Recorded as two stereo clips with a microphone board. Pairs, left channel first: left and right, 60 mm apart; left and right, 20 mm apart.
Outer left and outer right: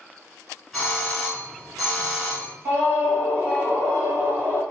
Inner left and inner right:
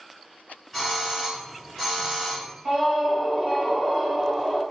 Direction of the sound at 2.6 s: 40° right (ahead or behind).